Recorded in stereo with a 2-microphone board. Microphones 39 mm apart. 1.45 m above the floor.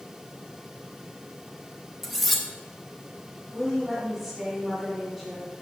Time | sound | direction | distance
2.0 | cutlery clinking | 5° left (ahead or behind) | 0.8 m
3.5 | a woman speaking | centre (ahead or behind) | 3 m